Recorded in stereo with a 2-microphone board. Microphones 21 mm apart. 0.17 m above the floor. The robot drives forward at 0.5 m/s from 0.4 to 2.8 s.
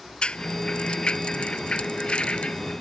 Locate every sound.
0.2 s a rattle: 60° left (ahead or behind); by 2.7 s 65° left (ahead or behind)